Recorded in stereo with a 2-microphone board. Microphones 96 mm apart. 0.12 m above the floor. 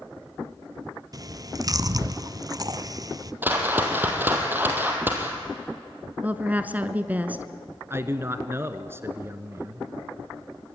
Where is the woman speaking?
15° right (ahead or behind), 1.1 m.